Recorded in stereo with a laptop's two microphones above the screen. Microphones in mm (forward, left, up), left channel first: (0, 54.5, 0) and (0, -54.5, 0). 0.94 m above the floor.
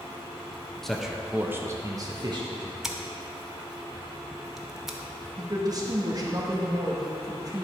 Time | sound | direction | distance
0.8 | a man speaking | 5° left (ahead or behind) | 1.0 m
2.8 | scissors | 5° right (ahead or behind) | 0.9 m
5.4 | a woman speaking | 35° right (ahead or behind) | 1.2 m